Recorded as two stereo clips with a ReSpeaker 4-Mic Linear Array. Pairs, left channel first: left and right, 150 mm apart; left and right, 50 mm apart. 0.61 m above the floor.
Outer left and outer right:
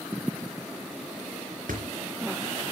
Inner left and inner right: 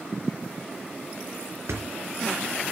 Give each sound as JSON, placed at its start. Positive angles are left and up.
{"t": 1.7, "sound": "a thud", "side_deg": -80, "distance_m": 3.0}